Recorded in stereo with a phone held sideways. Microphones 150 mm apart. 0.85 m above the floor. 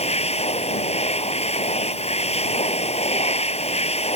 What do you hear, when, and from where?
0.0 s a machine running: 50° left (ahead or behind)